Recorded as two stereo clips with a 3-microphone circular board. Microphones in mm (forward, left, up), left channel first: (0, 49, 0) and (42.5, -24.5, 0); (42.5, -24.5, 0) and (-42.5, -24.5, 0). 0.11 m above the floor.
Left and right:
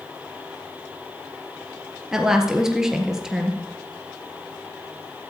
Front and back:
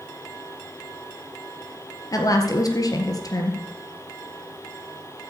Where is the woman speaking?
20° left, 1.6 m.